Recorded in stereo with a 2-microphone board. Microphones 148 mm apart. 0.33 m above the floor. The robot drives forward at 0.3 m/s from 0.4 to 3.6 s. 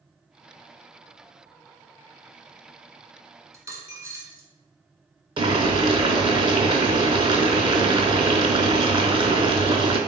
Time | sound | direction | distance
3.5 | a dropped coin | 20° right (ahead or behind) | 0.8 m
5.4 | boiling | 35° right (ahead or behind) | 0.6 m